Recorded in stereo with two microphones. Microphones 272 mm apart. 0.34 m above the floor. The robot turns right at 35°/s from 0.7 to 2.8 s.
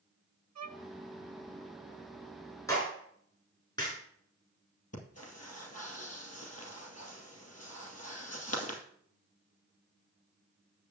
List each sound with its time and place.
0.6 s a violin: 65° right (ahead or behind), 0.6 m
2.7 s a clap: 10° left (ahead or behind), 4.5 m; by 4.0 s 15° left (ahead or behind), 4.5 m
4.9 s breathing: 65° left (ahead or behind), 2 m